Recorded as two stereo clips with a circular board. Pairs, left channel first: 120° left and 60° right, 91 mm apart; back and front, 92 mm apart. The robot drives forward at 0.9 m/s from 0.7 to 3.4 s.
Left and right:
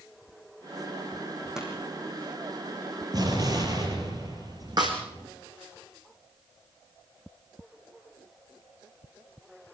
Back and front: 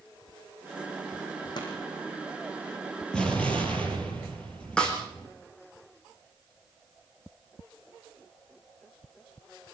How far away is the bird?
I don't hear a bird.